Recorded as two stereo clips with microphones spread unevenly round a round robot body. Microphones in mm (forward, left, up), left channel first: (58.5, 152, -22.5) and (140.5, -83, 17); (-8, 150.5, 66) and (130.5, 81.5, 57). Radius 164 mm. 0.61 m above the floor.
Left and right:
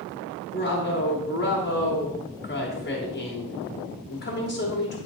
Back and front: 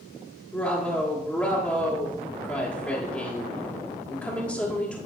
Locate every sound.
0.5 s a woman speaking: 70° left, 1.7 m